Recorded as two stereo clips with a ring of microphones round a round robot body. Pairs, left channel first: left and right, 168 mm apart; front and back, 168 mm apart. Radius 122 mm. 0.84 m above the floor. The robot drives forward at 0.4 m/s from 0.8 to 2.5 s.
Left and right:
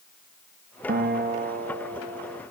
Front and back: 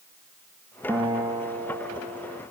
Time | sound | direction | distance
0.9 | a guitar | 105° right | 1.3 m